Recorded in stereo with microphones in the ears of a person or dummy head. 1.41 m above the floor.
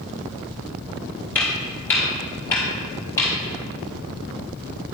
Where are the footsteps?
10° left (ahead or behind), 1.5 m; by 3.3 s 15° left (ahead or behind), 2.5 m.